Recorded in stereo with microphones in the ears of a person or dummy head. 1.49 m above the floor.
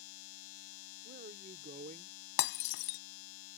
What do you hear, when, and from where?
0.0 s a machine running: 90° left
1.0 s a man speaking: 40° right (ahead or behind)
2.4 s breaking glass: 65° left (ahead or behind)